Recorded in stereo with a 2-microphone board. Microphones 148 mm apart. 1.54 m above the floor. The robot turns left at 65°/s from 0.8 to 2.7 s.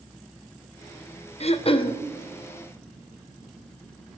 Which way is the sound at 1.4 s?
85° left.